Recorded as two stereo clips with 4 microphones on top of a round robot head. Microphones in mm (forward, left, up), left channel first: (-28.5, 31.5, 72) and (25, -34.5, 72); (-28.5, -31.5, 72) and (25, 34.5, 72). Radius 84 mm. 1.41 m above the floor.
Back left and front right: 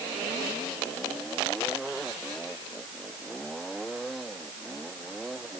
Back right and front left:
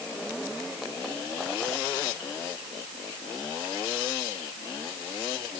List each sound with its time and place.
Only background noise.